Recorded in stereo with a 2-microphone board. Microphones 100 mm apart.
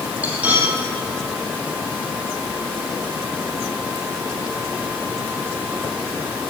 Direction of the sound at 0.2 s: 15° right (ahead or behind).